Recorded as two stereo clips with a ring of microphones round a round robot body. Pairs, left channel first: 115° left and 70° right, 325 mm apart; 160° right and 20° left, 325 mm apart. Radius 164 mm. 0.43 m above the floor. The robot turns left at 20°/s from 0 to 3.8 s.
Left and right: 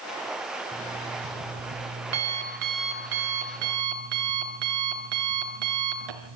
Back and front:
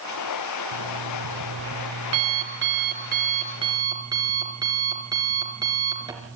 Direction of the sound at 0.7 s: 5° left.